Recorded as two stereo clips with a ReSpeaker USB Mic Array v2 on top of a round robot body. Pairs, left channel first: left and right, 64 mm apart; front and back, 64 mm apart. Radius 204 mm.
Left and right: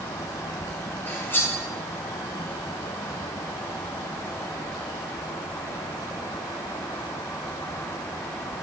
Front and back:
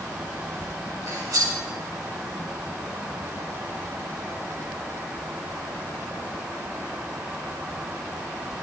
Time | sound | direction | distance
1.1 | cutlery clinking | 145° left | 2.5 m